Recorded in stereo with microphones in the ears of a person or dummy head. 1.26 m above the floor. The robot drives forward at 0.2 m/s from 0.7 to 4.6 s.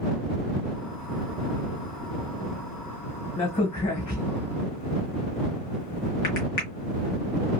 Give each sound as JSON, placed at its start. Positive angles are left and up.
{"t": 3.4, "sound": "a crack", "side_deg": 40, "distance_m": 1.4}